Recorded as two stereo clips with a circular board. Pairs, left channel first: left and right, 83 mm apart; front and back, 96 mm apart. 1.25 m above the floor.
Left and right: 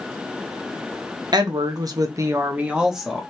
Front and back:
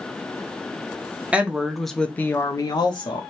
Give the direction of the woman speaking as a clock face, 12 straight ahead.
4 o'clock.